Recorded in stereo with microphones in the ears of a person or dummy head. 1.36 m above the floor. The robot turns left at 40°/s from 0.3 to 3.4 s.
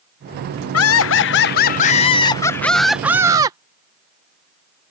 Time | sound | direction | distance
0.7 | laughter | 85° left | ?